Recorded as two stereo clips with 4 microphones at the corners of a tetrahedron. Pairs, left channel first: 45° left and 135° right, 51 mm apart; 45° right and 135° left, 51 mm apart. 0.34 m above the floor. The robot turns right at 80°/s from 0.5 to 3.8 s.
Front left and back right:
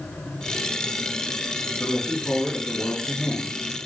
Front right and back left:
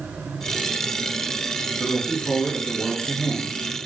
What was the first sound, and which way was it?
A woman speaking, 10° left.